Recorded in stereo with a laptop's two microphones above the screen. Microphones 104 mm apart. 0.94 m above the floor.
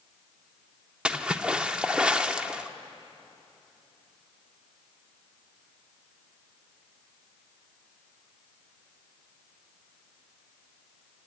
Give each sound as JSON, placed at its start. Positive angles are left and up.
{"t": 1.1, "sound": "a splash", "side_deg": -10, "distance_m": 0.7}